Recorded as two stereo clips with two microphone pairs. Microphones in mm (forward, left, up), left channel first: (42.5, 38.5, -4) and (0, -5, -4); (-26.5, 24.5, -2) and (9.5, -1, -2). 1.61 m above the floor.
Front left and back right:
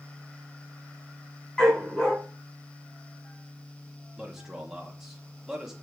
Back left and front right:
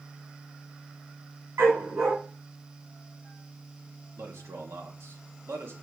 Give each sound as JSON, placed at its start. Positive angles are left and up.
{"t": 1.6, "sound": "a dog barking", "azimuth_deg": -30, "distance_m": 4.0}
{"t": 4.2, "sound": "a man speaking", "azimuth_deg": -50, "distance_m": 2.5}